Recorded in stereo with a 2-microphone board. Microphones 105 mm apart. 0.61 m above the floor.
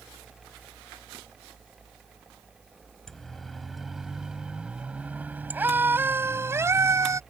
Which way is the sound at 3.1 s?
5° left (ahead or behind).